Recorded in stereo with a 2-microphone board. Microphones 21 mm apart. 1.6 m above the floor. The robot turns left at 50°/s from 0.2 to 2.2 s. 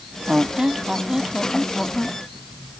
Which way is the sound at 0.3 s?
120° right.